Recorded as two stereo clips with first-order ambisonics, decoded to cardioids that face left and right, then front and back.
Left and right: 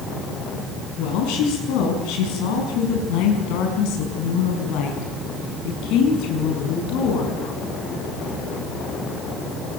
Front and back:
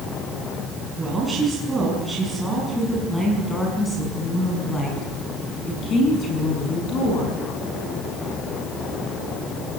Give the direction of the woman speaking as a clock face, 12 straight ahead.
9 o'clock.